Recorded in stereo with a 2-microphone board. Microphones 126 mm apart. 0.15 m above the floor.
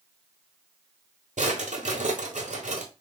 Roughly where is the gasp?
No gasp in this recording.